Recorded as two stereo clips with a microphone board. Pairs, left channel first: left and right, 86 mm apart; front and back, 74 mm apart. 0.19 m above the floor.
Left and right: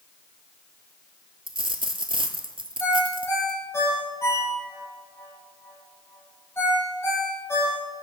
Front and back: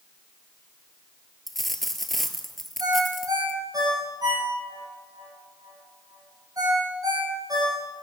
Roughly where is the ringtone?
Behind left.